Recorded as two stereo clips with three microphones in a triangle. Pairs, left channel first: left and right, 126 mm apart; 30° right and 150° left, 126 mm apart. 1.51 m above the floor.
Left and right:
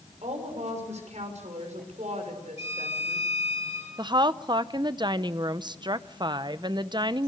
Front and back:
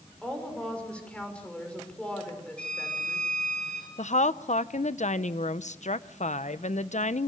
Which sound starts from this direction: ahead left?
A violin, at 2.6 s.